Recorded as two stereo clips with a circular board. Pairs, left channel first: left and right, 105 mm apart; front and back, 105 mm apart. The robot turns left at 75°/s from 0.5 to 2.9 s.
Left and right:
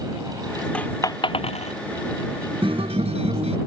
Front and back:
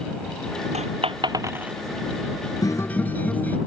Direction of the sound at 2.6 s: 55° right.